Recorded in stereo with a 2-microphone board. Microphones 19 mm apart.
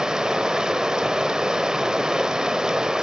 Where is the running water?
45° right (ahead or behind), 0.7 m.